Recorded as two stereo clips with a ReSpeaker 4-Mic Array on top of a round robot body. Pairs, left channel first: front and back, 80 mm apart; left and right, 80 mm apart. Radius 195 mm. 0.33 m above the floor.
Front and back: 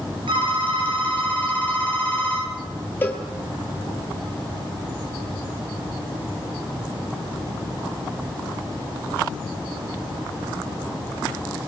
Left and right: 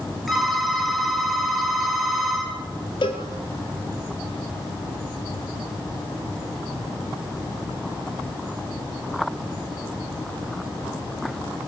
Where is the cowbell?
65° left, 4 m.